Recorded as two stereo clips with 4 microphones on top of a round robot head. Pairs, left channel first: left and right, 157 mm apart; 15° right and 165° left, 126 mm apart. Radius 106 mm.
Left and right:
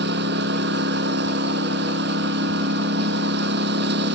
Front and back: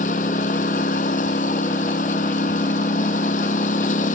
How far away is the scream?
No scream in this recording.